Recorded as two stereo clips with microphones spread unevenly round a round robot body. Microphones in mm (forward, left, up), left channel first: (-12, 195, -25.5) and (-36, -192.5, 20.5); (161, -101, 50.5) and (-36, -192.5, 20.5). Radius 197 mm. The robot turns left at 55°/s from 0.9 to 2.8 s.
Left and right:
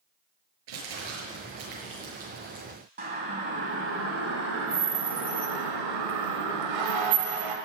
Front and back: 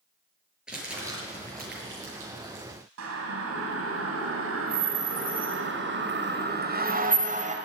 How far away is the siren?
About 3.5 m.